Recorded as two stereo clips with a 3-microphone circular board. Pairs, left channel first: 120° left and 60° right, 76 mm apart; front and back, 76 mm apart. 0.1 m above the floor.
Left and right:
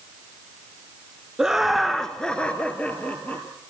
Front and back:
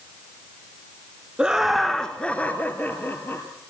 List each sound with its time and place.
1.4 s laughter: 125° right, 1.1 m; by 3.5 s 55° left, 1.9 m